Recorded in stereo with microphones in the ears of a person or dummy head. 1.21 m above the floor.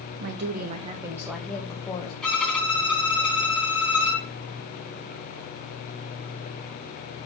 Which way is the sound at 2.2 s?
Centre (ahead or behind).